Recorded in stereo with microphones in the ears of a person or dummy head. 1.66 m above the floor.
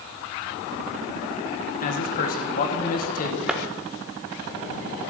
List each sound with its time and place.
1.8 s a man speaking: 50° left (ahead or behind), 1.7 m
3.5 s a clap: centre (ahead or behind), 1.4 m